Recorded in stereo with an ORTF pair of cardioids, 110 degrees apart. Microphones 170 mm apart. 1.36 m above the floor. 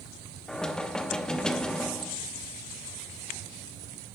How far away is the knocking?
About 1.0 m.